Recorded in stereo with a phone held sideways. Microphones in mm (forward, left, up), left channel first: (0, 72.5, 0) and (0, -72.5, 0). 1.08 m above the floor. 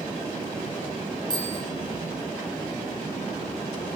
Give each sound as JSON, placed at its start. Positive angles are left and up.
{"t": 1.3, "sound": "a bicycle bell", "side_deg": -30, "distance_m": 5.5}